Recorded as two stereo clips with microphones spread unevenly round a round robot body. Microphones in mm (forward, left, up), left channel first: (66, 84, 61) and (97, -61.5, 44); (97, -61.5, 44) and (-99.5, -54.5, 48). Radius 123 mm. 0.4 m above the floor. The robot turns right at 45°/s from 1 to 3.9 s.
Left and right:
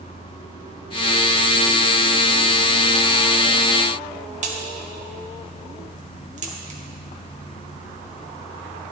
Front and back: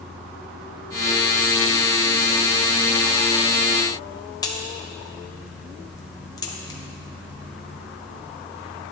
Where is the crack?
70° right, 1.8 m.